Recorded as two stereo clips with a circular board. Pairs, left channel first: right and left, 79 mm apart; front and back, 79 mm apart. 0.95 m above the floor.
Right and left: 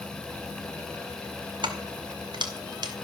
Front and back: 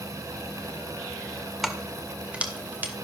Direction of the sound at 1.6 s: 90° left.